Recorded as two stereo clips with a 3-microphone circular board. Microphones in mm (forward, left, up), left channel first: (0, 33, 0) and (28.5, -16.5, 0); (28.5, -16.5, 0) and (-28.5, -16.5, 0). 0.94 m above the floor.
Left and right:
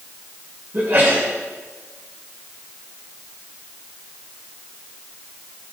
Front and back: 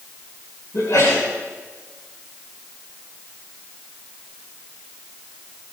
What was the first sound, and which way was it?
A sneeze, 20° right.